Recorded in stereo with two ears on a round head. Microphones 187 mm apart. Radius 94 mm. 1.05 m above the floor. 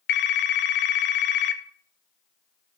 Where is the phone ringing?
55° left (ahead or behind), 0.6 m.